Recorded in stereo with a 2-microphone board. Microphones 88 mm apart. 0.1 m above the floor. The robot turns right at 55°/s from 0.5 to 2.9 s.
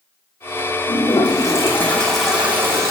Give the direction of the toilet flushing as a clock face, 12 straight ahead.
8 o'clock.